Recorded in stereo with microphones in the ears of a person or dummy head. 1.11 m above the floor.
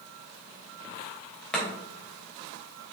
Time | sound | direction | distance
1.5 | chopping | 5° left (ahead or behind) | 2.5 m